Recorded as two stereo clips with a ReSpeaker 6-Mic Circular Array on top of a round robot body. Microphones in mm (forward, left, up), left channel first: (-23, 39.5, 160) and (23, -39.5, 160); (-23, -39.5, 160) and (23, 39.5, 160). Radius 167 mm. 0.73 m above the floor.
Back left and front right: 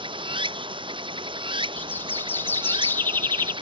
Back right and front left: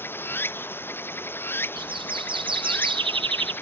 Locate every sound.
0.0 s running water: 55° right, 0.7 m
1.8 s a bird: 55° left, 1.4 m